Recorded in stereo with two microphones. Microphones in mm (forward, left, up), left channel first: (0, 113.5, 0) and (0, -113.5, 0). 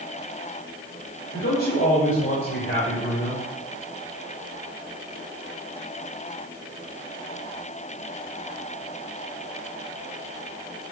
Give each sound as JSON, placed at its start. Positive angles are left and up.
{"t": 1.3, "sound": "a man speaking", "side_deg": 55, "distance_m": 2.5}